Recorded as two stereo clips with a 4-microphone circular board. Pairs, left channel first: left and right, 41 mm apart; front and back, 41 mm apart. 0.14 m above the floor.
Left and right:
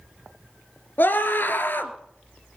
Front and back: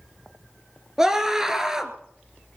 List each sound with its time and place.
1.0 s a scream: 105° left, 2 m